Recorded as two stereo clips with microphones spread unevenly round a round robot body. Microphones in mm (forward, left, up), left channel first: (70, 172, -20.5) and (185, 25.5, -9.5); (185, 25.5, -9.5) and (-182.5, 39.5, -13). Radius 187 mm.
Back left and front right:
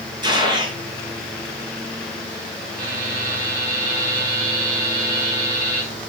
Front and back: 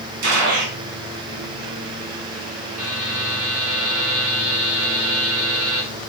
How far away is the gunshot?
About 4.5 m.